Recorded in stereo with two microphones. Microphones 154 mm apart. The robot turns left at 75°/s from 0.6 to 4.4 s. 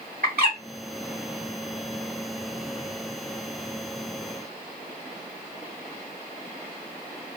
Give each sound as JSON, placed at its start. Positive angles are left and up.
{"t": 0.2, "sound": "a bird", "side_deg": -75, "distance_m": 2.0}